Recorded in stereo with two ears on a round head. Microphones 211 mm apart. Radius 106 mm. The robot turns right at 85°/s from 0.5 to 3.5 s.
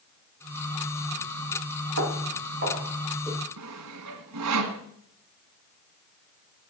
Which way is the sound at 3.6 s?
80° right.